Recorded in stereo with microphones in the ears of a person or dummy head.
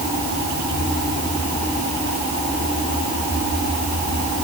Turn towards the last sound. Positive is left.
No sound to turn to.